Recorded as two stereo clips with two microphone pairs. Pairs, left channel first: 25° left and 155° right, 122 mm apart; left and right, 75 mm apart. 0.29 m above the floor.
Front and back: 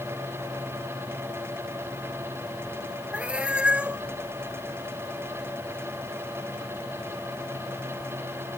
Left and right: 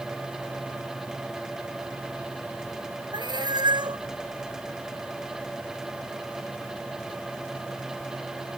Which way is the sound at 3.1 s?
75° right.